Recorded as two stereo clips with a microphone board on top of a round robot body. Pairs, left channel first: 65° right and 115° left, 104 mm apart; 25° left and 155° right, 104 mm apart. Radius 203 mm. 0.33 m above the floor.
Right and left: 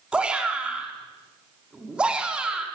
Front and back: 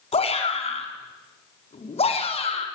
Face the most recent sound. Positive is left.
turn(degrees=30)